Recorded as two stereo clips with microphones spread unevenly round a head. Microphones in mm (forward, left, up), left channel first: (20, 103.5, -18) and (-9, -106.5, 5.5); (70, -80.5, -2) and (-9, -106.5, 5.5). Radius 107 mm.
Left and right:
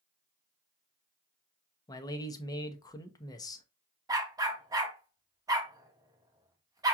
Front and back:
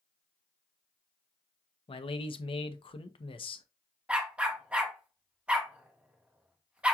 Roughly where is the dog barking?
Behind right.